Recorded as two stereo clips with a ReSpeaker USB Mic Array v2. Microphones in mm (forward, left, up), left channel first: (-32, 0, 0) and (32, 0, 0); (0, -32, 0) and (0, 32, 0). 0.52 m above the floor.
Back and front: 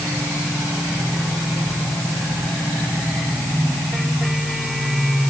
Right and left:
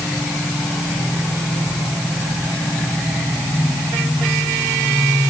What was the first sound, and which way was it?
Only background noise.